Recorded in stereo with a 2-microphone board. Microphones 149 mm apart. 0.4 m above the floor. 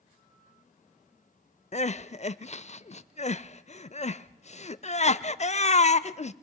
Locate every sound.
1.7 s crying: 50° left (ahead or behind), 0.5 m